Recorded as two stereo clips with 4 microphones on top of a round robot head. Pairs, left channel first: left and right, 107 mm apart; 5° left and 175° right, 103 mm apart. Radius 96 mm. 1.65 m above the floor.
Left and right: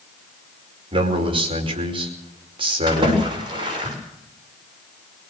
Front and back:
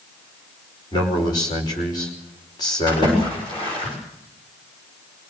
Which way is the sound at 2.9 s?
45° right.